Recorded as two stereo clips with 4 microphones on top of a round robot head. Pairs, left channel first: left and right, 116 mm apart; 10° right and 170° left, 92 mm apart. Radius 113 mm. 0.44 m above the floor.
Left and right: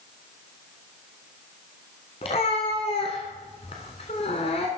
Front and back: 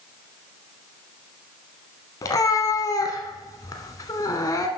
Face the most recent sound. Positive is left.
turn(degrees=40)